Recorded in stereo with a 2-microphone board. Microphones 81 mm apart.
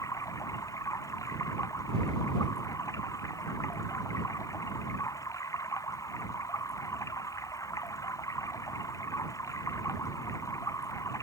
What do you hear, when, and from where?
0.0 s running water: 40° left (ahead or behind)